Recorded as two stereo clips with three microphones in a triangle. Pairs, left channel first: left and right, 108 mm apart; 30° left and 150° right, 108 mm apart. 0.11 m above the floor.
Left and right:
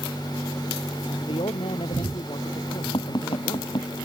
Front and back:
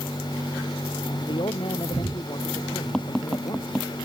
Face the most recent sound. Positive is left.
turn(degrees=115)